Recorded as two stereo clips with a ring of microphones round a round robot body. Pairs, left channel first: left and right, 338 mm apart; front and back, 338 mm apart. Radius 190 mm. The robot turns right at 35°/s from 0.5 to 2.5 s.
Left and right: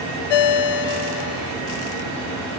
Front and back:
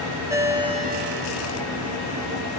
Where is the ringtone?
95° left, 0.9 m; by 1.6 s 135° left, 0.9 m.